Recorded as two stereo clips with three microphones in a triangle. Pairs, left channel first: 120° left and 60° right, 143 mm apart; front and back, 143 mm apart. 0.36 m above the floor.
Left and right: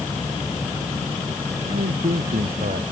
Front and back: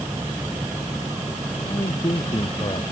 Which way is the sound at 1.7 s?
55° right.